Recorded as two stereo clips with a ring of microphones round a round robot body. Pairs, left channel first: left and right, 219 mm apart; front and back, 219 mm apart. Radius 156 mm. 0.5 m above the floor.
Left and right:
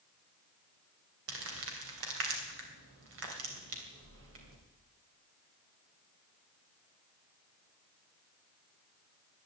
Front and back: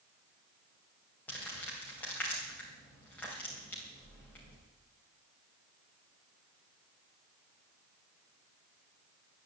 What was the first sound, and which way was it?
Crumpling, 85° right.